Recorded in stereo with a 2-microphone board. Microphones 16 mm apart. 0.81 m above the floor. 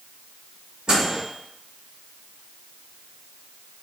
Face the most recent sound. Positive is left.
turn(degrees=-80)